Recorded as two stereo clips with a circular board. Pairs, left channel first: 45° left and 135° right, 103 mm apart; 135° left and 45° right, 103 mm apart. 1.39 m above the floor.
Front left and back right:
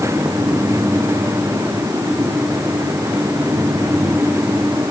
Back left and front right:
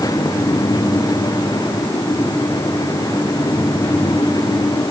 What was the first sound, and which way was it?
Only background noise.